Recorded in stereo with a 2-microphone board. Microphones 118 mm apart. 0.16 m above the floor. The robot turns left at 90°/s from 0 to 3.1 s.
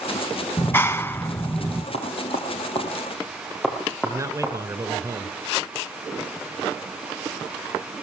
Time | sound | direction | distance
0.6 | a clap | 15° left (ahead or behind) | 1.0 m
1.9 | knocking | 60° left (ahead or behind) | 4 m
4.0 | a man speaking | 30° right (ahead or behind) | 1.5 m